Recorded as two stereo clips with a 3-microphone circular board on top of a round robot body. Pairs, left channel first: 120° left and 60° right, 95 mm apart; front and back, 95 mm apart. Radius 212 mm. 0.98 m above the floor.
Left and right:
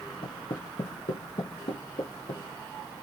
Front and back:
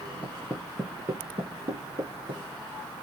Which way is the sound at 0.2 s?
80° left.